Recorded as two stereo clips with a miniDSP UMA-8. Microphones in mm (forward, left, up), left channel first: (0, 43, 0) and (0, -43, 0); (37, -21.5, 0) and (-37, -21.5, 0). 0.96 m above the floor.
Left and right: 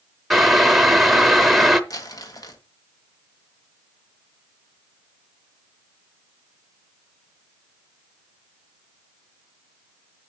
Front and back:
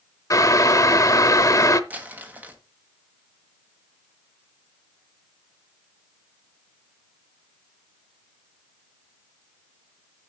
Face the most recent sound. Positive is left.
turn(degrees=115)